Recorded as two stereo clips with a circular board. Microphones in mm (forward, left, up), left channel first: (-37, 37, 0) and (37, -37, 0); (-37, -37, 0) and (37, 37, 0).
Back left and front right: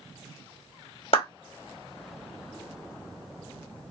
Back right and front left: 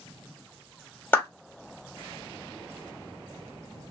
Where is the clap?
155° left, 1.8 m.